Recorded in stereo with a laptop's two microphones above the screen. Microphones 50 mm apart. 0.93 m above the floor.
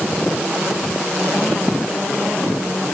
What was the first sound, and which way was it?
Only background noise.